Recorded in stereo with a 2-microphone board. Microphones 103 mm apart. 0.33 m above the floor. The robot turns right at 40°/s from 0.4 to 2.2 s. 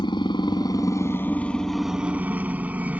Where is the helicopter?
125° left; by 3.0 s 165° right.